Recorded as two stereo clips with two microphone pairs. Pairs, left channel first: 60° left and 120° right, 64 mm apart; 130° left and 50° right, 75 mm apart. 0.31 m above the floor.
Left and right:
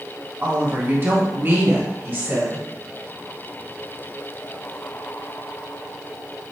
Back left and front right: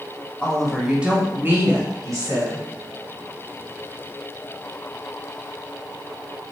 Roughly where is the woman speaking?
Behind right.